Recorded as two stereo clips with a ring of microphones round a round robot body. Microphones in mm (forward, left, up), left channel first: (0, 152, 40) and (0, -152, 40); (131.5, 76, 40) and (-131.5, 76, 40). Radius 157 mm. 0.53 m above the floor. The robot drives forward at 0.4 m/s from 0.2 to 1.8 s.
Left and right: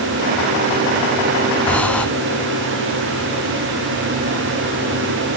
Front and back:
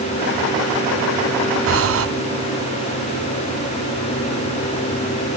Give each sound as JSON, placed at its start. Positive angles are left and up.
{"t": 1.7, "sound": "breathing", "azimuth_deg": 175, "distance_m": 1.0}